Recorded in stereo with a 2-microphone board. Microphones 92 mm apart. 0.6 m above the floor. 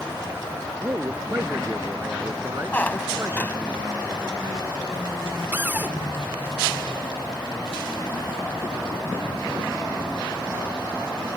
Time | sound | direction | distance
0.8 | a man speaking | 25° right (ahead or behind) | ?
2.7 | a squeak | 20° left (ahead or behind) | ?
5.5 | a cupboard door | 20° right (ahead or behind) | ?